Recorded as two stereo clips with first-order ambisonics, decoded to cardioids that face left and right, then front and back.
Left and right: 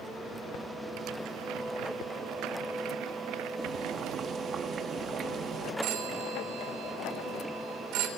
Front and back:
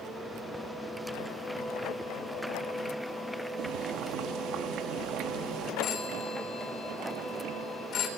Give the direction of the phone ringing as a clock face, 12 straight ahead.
2 o'clock.